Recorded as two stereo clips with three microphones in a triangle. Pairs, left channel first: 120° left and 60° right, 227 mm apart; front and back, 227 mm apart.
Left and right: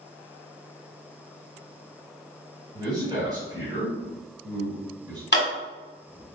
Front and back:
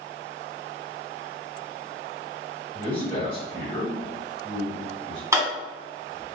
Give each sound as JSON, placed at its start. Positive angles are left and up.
{"t": 2.7, "sound": "a man speaking", "azimuth_deg": -15, "distance_m": 1.4}
{"t": 5.3, "sound": "a sliding door", "azimuth_deg": 110, "distance_m": 1.2}